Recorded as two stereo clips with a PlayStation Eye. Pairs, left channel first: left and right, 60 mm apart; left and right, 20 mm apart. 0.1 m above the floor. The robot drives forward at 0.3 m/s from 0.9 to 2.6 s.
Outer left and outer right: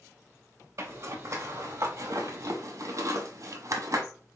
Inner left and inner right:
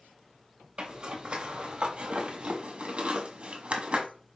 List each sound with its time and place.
0.8 s a zipper: 55° right (ahead or behind), 1.2 m; by 4.0 s 70° right (ahead or behind), 1.0 m